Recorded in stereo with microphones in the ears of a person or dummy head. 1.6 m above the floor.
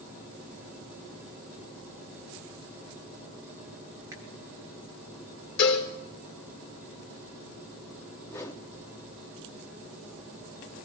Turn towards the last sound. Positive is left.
turn(degrees=15)  # may be behind; listen again after turning